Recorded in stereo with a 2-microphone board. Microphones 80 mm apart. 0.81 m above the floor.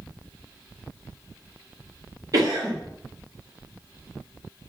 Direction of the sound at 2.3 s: 45° right (ahead or behind).